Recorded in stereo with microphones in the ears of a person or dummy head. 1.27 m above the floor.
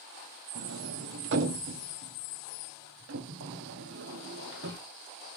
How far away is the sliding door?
About 1.2 m.